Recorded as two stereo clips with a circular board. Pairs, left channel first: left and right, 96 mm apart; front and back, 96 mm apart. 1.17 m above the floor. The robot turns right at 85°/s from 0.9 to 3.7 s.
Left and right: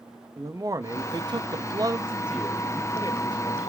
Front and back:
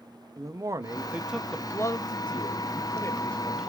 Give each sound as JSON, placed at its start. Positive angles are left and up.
{"t": 0.4, "sound": "a man speaking", "azimuth_deg": -130, "distance_m": 0.6}